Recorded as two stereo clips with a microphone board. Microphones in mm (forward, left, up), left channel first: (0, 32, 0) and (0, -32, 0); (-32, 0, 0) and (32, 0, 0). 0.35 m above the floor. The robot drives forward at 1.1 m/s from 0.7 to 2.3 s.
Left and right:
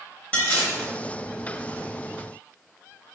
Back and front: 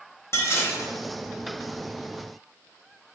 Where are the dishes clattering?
155° left, 1.0 m; by 0.9 s 160° left, 1.1 m.